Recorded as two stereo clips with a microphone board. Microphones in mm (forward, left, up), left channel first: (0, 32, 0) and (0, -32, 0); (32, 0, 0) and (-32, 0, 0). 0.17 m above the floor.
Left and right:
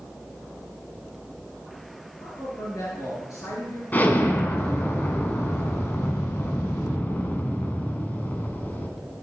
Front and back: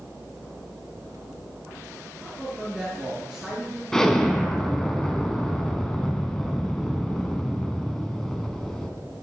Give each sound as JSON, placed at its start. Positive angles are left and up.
{"t": 2.2, "sound": "a man speaking", "azimuth_deg": 100, "distance_m": 3.0}
{"t": 3.9, "sound": "an explosion", "azimuth_deg": 75, "distance_m": 1.3}